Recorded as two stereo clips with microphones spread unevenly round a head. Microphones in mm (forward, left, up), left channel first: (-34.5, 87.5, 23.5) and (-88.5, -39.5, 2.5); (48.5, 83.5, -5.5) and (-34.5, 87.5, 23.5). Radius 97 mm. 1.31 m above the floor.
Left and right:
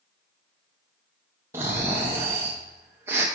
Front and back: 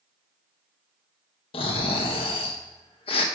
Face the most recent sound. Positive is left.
turn(degrees=-30)